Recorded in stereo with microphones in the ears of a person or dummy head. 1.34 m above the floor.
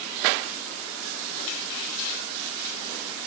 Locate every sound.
Only background noise.